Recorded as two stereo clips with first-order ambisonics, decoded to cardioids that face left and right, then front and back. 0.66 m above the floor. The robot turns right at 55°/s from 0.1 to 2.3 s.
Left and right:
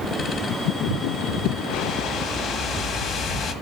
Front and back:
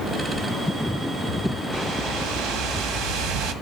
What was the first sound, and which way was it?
A whoosh, 125° left.